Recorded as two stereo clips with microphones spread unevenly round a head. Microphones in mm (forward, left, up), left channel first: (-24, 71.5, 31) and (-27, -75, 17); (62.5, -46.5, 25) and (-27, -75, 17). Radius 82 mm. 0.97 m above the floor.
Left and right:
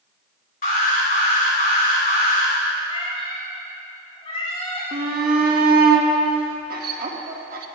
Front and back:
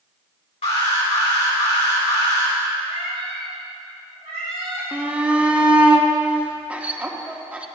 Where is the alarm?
50° left, 3 m.